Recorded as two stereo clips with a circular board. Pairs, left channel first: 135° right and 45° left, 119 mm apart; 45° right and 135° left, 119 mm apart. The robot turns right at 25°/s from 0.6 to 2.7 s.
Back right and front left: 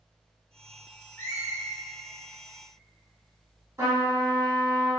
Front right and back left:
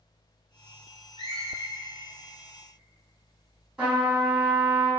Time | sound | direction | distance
1.2 | a squeak | 160° left | 0.6 m
3.8 | a trumpet | 60° left | 1.8 m